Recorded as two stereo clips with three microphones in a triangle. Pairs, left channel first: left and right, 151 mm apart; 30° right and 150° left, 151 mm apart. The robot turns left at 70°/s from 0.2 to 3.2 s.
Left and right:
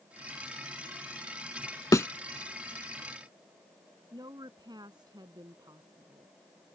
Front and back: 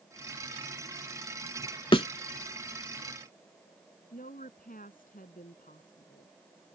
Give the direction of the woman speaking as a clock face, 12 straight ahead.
1 o'clock.